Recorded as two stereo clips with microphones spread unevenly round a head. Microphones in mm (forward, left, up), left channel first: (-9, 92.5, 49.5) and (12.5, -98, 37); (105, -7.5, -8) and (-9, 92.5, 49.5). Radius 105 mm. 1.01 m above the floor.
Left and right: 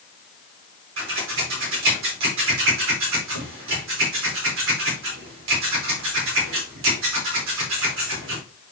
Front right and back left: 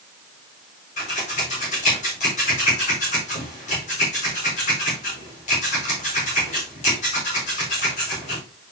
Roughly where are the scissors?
Right.